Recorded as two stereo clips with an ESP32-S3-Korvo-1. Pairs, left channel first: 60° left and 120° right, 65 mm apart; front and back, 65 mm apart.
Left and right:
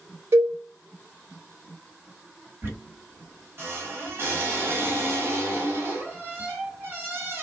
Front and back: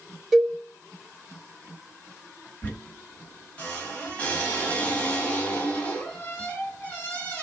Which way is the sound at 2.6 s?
70° right.